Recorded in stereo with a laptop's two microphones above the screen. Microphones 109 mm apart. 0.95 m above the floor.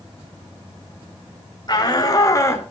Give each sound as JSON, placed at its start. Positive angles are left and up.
{"t": 1.7, "sound": "a shout", "side_deg": 40, "distance_m": 3.5}